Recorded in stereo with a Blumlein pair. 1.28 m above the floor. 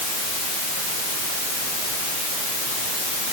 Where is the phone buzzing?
No phone buzzing in this recording.